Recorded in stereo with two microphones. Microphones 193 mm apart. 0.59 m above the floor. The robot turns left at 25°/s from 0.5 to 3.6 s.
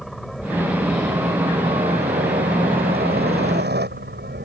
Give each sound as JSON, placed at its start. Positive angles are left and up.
{"t": 0.0, "sound": "a helicopter", "side_deg": 0}